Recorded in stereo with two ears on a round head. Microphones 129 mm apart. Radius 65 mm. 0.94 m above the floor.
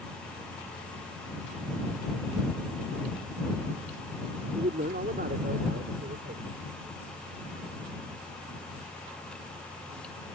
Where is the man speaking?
65° right (ahead or behind).